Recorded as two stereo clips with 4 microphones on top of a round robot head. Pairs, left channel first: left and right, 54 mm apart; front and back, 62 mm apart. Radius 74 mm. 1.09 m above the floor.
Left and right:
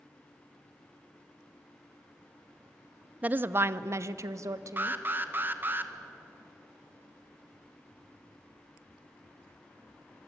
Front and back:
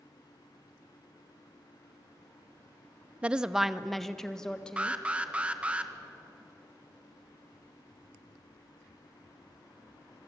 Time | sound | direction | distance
3.2 | a woman speaking | 125° right | 0.6 m
4.8 | an alarm | 115° right | 1.6 m